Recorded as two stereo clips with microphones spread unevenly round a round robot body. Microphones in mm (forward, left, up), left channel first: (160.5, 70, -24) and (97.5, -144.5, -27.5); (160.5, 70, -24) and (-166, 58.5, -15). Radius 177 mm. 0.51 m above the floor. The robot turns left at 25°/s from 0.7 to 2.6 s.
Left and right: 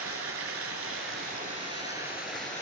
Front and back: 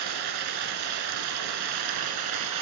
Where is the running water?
155° right, 1.9 m; by 2.6 s 155° left, 1.9 m.